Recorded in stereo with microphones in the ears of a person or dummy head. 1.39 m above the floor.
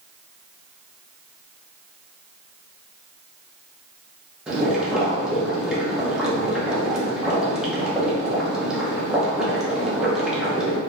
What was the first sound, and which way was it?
Boiling, 5° right (ahead or behind).